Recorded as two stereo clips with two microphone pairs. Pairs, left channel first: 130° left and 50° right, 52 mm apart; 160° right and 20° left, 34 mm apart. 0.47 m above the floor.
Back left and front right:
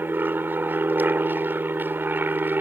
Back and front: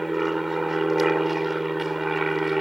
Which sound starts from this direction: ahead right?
An aircraft, at 0.0 s.